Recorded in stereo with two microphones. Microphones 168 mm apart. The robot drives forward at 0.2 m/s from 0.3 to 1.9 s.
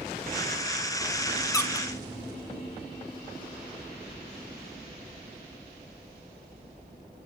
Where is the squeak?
20° left (ahead or behind), 0.7 m.